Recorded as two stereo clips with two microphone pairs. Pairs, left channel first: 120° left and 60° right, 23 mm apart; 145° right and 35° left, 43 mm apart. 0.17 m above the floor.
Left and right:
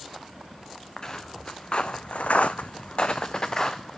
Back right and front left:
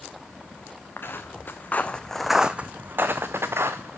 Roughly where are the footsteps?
Behind.